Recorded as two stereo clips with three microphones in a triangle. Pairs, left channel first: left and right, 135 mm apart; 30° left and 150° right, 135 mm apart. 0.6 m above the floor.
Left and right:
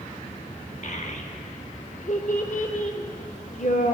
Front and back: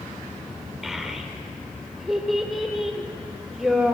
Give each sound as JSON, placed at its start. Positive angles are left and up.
{"t": 0.8, "sound": "a child speaking", "azimuth_deg": 120, "distance_m": 0.8}